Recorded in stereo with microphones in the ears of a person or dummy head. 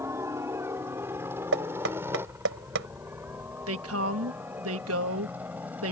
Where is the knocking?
65° right (ahead or behind).